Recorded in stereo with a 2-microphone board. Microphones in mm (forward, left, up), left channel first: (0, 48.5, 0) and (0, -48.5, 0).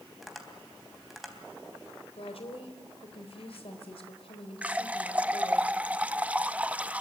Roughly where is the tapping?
Centre.